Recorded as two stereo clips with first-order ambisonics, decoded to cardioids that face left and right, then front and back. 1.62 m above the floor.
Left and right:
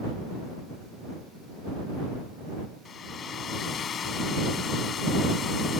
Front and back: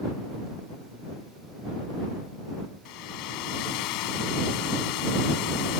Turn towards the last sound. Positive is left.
turn(degrees=25)